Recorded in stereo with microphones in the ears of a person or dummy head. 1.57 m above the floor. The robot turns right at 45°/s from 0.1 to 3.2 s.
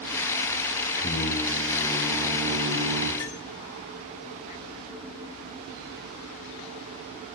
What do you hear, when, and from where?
1.0 s singing: 135° left, 1.8 m; by 3.1 s 130° right, 1.8 m
3.2 s cutlery clinking: 20° left (ahead or behind), 1.6 m